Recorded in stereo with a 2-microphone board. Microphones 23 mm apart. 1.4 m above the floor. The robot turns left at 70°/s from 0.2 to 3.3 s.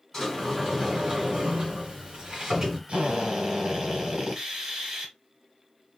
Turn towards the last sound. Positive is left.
turn(degrees=-15)  # may be behind; listen again after turning